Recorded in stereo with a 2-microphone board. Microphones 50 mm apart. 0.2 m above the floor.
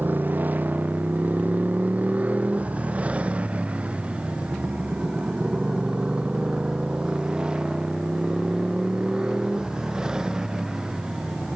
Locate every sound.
0.0 s a motorcycle: 40° right (ahead or behind); by 11.6 s 15° right (ahead or behind)